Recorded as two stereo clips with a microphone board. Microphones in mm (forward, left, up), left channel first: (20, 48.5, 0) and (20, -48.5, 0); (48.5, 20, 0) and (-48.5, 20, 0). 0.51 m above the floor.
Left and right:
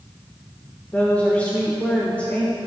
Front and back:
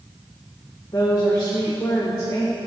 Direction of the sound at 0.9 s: 25° left.